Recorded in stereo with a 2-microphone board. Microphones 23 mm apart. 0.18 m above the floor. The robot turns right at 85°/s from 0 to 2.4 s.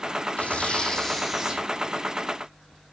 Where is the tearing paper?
105° left, 7 m; by 1.6 s 150° right, 7 m.